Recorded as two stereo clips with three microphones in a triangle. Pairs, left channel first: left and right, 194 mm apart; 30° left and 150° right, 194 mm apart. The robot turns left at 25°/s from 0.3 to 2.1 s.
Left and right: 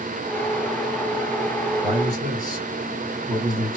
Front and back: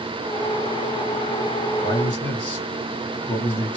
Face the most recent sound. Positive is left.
turn(degrees=-40)